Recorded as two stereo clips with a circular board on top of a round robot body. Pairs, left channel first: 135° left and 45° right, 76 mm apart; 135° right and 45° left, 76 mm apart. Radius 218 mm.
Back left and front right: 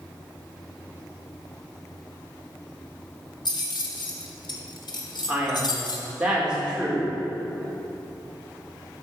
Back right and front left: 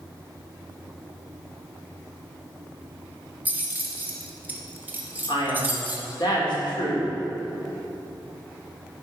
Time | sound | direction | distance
3.5 | keys jangling | 110° left | 1.3 m
5.3 | a man speaking | 125° right | 3 m